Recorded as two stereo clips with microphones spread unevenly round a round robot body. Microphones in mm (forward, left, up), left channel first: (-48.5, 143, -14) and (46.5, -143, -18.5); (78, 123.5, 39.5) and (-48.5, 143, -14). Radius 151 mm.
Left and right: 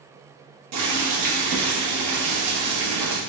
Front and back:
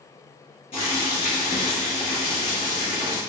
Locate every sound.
0.7 s boiling: 75° right, 1.1 m